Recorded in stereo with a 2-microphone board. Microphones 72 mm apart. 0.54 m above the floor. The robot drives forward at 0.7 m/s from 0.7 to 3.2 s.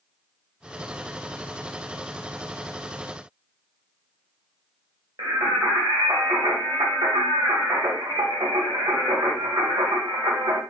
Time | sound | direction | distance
5.2 | singing | 70° right (ahead or behind) | 2 m